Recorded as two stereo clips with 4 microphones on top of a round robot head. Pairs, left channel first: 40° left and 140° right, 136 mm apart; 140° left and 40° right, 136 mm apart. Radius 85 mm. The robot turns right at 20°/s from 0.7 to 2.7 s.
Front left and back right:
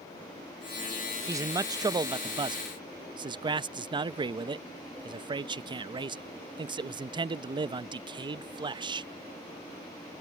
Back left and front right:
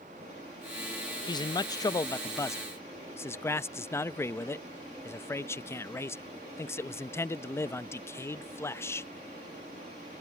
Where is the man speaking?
170° left; by 9.1 s 160° right.